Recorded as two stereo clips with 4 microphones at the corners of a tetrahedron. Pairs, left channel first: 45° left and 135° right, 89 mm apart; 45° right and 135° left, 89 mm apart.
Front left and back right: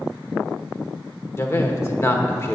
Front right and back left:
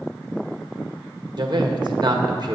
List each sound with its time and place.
1.4 s a man speaking: 100° left, 1.5 m